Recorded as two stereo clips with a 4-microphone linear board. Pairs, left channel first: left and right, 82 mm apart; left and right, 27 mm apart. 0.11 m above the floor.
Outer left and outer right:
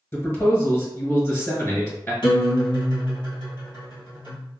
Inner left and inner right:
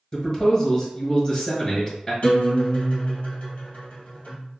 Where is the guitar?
60° left (ahead or behind), 1.9 m.